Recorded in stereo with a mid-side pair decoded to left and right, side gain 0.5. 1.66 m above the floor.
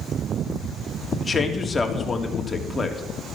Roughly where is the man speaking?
Ahead.